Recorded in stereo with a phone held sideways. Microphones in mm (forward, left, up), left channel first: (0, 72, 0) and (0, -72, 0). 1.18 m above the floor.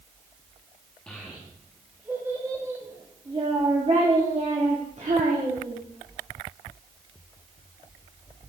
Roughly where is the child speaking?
Centre.